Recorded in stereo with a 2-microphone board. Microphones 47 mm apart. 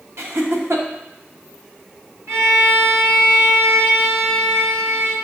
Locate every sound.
0.2 s laughter: 65° right (ahead or behind), 0.9 m
2.3 s a violin: 75° right (ahead or behind), 1.2 m